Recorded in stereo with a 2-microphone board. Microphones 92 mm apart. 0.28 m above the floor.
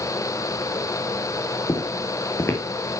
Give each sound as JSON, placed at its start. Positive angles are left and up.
{"t": 1.7, "sound": "footsteps", "side_deg": 30, "distance_m": 3.0}